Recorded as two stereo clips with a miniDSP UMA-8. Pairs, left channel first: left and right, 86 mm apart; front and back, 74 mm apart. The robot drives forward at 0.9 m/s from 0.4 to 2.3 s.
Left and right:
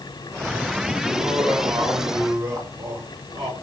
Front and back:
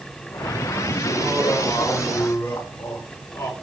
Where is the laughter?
30° right, 2.5 m; by 3.5 s 55° right, 1.7 m.